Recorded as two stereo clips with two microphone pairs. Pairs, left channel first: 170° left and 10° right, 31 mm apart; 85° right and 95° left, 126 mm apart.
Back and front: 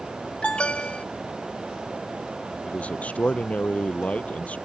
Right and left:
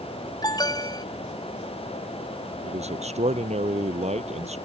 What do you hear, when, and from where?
0.4 s an alarm: 140° right
2.6 s a man speaking: 125° left